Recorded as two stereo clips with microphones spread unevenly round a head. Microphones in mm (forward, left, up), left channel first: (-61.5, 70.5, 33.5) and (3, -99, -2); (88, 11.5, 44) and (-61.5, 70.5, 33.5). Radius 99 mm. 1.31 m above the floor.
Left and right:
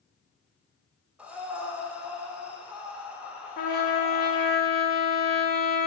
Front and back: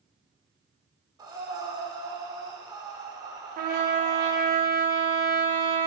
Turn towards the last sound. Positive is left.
turn(degrees=130)